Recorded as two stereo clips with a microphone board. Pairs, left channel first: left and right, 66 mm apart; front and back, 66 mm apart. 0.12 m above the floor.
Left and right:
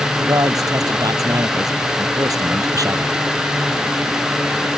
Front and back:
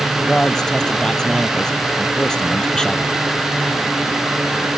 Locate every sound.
0.2 s a man speaking: 80° right